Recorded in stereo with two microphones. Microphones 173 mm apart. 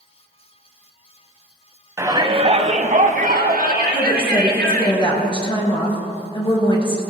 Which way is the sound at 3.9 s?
25° left (ahead or behind).